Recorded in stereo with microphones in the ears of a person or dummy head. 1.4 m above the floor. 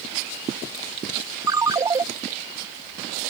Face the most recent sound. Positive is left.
turn(degrees=-20)  # may be behind; listen again after turning